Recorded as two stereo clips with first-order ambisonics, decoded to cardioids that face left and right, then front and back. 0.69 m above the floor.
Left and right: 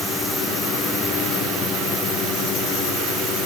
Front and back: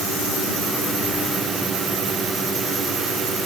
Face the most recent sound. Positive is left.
No sound to turn to.